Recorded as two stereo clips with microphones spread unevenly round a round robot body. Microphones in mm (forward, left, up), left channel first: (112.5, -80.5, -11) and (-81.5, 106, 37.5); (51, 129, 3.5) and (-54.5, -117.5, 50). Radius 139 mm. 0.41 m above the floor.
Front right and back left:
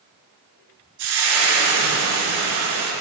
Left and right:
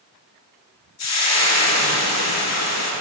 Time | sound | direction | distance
1.0 | frying | 100° left | 2.5 m